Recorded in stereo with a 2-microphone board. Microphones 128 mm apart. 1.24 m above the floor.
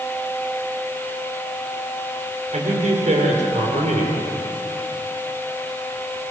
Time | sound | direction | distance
2.5 | a man speaking | 70° right (ahead or behind) | 4 m